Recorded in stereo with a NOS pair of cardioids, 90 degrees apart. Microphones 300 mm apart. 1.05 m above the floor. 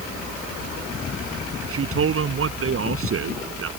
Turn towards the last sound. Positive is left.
turn(degrees=-45)